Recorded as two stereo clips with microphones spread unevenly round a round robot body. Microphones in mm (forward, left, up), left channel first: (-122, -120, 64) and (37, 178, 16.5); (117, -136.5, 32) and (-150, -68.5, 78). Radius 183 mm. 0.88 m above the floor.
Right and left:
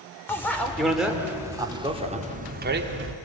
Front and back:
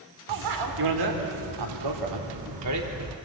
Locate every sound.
0.3 s a bicycle bell: 155° left, 2.5 m; by 3.1 s 115° left, 1.7 m